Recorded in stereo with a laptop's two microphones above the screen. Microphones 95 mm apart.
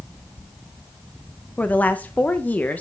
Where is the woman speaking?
15° left (ahead or behind), 0.5 m.